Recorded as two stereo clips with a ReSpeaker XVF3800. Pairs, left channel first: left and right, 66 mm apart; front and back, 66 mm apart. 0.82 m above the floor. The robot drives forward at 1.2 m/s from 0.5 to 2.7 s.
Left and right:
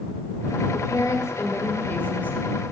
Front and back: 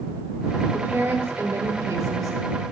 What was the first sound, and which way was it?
A woman speaking, 115° left.